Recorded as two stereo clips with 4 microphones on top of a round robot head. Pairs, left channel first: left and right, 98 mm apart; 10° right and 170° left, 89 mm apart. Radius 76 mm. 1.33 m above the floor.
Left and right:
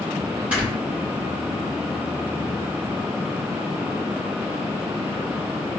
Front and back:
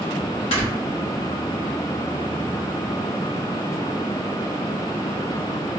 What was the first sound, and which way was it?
Snoring, 10° right.